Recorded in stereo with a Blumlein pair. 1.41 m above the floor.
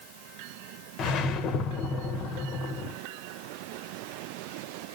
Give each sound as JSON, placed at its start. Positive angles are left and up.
{"t": 1.0, "sound": "a whoosh", "azimuth_deg": 30, "distance_m": 1.1}